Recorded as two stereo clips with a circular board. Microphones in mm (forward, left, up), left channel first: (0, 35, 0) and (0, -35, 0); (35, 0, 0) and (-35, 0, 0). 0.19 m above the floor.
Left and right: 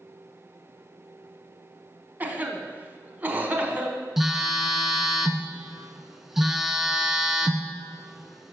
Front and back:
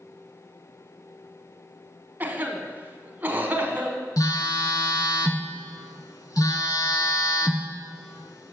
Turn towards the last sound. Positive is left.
turn(degrees=-5)